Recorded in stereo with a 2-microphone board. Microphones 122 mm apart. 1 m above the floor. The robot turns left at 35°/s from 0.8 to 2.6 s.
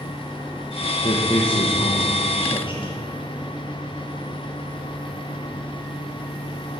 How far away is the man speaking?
About 0.7 m.